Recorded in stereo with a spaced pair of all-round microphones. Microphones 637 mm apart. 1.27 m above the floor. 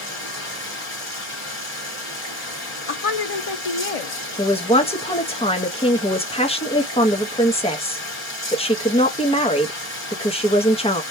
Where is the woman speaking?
60° left (ahead or behind), 0.6 m.